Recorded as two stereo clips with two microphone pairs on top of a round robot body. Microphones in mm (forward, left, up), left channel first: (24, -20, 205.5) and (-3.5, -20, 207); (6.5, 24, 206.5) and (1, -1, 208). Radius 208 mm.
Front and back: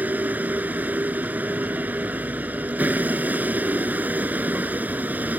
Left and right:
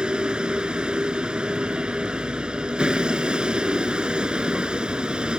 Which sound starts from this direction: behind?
A vehicle, at 0.0 s.